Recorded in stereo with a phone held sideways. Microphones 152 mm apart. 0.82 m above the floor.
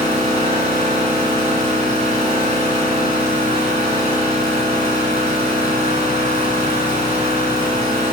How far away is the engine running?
About 4 m.